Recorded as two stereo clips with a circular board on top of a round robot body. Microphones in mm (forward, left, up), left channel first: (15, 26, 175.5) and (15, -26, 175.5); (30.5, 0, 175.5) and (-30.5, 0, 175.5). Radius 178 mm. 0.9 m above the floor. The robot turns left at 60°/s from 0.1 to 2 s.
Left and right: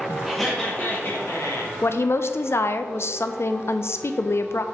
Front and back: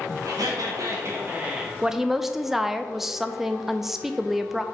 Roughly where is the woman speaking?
Left.